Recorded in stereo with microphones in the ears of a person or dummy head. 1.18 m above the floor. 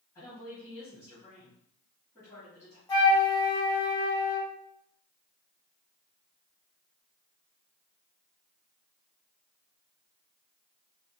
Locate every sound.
0.1 s a woman speaking: 10° left (ahead or behind), 2 m
2.9 s a flute: 20° left (ahead or behind), 1.6 m